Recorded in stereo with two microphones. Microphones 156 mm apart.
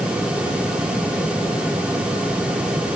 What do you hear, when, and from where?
Only background noise.